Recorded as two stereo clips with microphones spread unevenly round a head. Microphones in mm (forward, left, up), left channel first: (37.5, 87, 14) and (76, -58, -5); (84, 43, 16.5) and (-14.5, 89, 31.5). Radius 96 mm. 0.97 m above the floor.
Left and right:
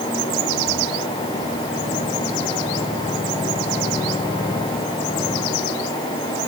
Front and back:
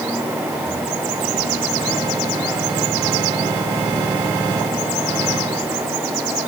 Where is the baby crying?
I don't hear a baby crying.